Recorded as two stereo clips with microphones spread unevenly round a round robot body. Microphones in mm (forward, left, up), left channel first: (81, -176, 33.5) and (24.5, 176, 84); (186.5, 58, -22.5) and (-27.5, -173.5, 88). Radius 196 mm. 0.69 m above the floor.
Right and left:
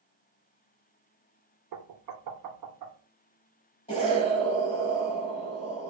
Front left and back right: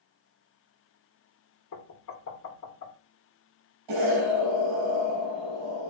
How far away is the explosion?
About 4.5 m.